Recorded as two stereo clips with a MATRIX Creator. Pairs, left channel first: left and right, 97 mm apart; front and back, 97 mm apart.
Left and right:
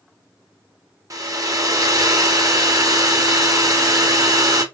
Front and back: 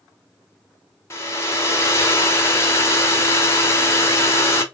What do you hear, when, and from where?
1.1 s a hair dryer: 50° right, 1.1 m